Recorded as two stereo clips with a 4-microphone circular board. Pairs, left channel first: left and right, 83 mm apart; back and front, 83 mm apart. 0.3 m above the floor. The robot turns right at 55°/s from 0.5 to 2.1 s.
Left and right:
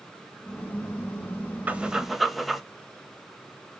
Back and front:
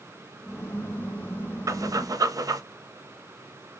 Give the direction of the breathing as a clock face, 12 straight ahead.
1 o'clock.